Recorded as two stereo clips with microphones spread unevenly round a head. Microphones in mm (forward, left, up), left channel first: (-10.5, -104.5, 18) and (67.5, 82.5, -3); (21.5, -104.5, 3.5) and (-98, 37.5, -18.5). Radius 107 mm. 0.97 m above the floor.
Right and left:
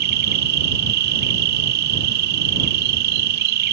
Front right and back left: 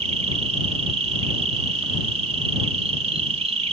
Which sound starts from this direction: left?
An insect, at 0.0 s.